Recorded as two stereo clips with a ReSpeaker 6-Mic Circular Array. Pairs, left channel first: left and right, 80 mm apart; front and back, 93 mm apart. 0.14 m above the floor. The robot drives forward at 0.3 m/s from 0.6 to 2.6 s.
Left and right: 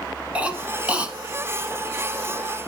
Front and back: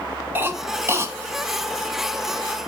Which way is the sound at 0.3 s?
145° right.